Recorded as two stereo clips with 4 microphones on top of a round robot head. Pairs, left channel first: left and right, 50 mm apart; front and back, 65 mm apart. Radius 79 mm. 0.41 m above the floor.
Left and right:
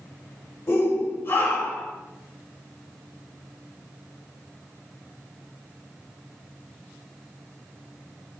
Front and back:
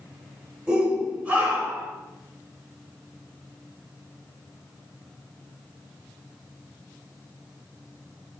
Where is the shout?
110° left, 2.5 m; by 1.9 s 120° left, 3 m.